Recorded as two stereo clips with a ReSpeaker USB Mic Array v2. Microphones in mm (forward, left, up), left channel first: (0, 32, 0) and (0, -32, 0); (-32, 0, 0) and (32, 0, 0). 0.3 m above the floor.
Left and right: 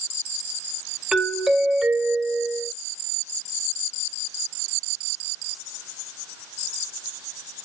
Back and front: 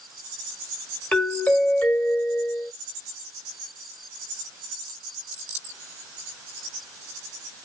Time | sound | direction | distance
1.1 | a doorbell | 160° right | 1.5 m